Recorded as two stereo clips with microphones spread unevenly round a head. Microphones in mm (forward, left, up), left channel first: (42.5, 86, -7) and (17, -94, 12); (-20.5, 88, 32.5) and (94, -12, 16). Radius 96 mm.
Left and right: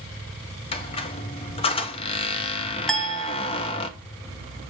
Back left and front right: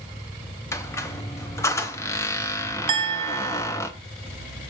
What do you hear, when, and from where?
0.7 s a squeak: 110° left, 0.7 m
2.9 s a clink: 15° right, 0.7 m